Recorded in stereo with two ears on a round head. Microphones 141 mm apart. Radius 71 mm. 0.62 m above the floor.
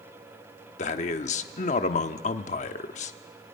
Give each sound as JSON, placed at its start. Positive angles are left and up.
{"t": 0.8, "sound": "a man speaking", "side_deg": 45, "distance_m": 1.0}